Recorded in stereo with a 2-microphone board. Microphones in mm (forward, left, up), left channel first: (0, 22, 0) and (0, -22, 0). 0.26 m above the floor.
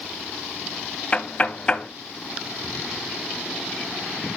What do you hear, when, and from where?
1.1 s knocking: 25° left (ahead or behind), 0.8 m